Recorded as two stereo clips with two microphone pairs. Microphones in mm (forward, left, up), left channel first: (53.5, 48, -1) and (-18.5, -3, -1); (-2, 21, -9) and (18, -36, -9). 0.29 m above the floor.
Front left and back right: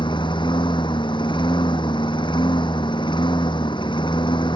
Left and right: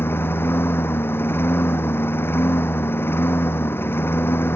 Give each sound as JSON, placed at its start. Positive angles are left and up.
{"t": 0.0, "sound": "a lawn mower", "azimuth_deg": 60}